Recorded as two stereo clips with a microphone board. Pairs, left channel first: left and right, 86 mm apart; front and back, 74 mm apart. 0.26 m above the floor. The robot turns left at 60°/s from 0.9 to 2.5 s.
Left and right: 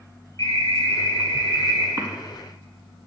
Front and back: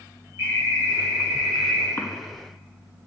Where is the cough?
50° right, 2.0 m; by 2.1 s 55° right, 2.0 m.